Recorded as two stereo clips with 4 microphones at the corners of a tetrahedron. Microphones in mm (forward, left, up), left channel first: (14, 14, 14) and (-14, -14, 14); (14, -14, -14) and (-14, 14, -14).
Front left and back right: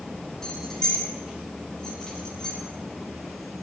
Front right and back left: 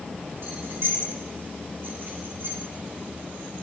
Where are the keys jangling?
115° left, 4.5 m.